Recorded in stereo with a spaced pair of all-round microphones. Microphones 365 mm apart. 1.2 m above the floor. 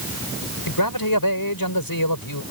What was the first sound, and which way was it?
A man speaking, 65° left (ahead or behind).